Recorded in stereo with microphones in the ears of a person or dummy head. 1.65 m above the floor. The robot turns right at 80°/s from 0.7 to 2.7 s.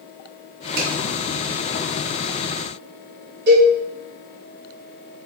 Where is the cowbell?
65° right (ahead or behind), 2 m.